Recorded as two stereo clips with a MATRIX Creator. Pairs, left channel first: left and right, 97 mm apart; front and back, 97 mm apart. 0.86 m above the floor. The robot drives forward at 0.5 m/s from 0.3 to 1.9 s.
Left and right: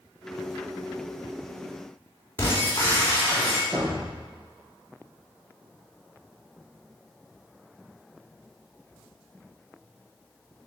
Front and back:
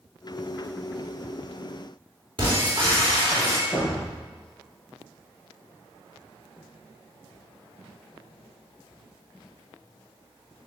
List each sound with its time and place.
2.4 s breaking glass: 150° left, 3 m
3.7 s a thud: 60° right, 3 m